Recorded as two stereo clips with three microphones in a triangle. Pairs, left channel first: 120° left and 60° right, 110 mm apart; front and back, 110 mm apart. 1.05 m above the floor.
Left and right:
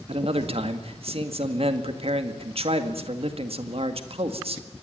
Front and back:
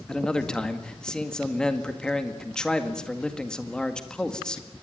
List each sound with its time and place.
0.1 s a man speaking: 85° right, 1.9 m